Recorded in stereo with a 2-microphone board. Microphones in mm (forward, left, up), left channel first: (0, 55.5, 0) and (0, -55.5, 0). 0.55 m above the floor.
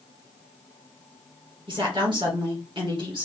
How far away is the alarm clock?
No alarm clock in this recording.